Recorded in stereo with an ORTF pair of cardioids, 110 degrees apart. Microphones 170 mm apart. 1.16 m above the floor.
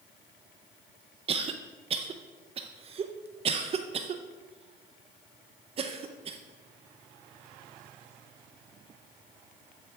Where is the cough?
35° right, 0.5 m.